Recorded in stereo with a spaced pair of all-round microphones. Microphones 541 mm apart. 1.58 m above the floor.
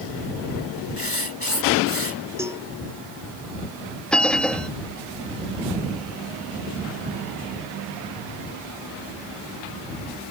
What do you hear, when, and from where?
1.0 s writing: 70° left (ahead or behind)
2.4 s a cowbell: 5° right (ahead or behind)
4.1 s a bell: centre (ahead or behind)